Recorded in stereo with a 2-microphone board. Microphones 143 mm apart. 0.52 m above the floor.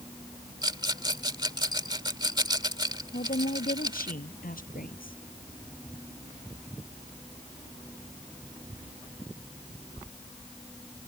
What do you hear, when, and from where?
0.6 s a rattle: 30° right (ahead or behind)
3.1 s a woman speaking: 80° left